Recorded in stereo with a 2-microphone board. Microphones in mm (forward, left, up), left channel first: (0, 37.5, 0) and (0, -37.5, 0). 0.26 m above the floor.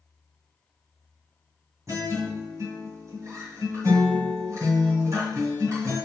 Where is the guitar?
45° right (ahead or behind), 2.0 m.